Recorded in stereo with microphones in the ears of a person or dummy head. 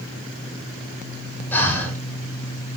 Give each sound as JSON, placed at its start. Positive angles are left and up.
{"t": 1.5, "sound": "breathing", "side_deg": 10, "distance_m": 4.5}